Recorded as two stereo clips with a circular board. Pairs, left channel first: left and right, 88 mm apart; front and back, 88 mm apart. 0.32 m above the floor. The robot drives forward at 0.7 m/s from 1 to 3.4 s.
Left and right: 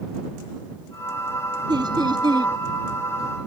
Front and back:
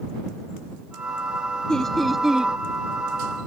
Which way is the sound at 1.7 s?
80° right.